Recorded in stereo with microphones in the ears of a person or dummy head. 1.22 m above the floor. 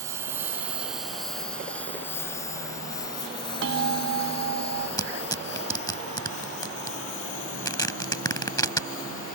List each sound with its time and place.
0.0 s a lawn mower: 20° right (ahead or behind); by 9.4 s 50° left (ahead or behind)
3.6 s a bell: 75° right (ahead or behind)
5.0 s tearing paper: 20° left (ahead or behind)